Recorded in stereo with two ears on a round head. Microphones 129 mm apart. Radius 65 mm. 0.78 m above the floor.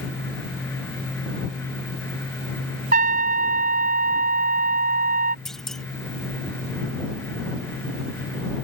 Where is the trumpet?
70° right (ahead or behind).